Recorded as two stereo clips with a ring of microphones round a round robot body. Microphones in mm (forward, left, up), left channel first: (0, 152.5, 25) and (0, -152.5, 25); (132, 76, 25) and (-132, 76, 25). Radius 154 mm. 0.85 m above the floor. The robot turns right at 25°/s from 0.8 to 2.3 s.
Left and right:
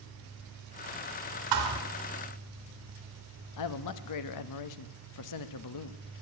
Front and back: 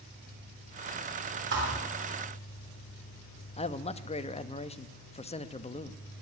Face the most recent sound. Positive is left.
turn(degrees=70)